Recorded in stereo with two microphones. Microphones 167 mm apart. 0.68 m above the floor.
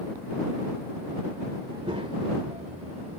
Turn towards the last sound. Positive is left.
turn(degrees=-45)  # may be behind; listen again after turning